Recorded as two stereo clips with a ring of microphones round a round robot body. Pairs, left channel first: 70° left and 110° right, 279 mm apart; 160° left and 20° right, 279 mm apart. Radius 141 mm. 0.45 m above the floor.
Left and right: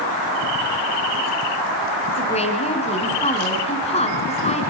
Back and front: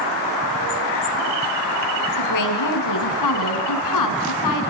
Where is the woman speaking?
135° left, 5 m.